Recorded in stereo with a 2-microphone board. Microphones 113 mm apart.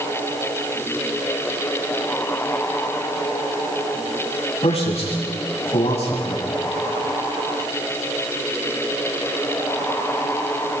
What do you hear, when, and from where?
4.6 s a man speaking: 70° left (ahead or behind), 7.5 m